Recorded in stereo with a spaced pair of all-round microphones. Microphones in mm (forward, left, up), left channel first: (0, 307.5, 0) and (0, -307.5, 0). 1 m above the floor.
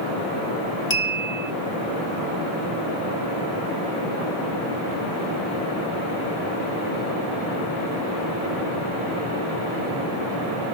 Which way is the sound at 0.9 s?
45° left (ahead or behind).